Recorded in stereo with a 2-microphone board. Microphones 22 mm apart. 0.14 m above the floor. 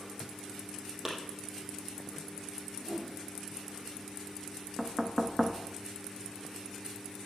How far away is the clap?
About 4 m.